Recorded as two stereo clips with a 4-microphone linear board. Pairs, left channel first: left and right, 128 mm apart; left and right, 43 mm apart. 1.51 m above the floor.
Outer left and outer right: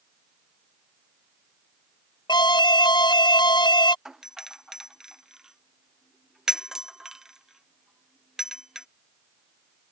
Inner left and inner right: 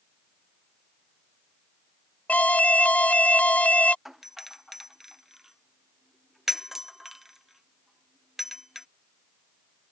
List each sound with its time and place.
2.3 s an alarm: 35° left (ahead or behind)
4.0 s a doorbell: 5° right (ahead or behind)